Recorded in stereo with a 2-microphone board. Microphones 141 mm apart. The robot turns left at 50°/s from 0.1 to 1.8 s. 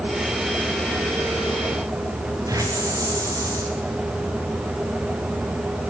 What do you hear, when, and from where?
2.5 s a hiss: 25° right (ahead or behind), 5 m